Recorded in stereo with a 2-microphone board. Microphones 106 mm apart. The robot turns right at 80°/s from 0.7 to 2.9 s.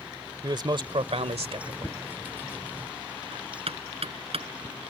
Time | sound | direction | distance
0.4 | a man speaking | 135° right | ?
1.8 | knocking | 20° left (ahead or behind) | ?